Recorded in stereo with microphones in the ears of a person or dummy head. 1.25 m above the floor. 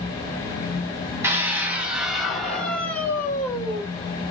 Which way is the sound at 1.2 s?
10° right (ahead or behind).